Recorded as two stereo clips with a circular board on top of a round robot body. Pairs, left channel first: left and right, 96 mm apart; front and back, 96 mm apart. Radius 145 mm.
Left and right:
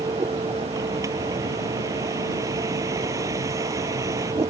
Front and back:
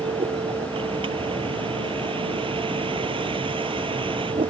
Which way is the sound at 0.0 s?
150° right.